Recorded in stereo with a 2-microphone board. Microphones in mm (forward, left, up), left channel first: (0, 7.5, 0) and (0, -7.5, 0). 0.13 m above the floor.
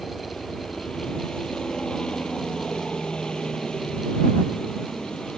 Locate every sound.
0.0 s a helicopter: 65° left (ahead or behind)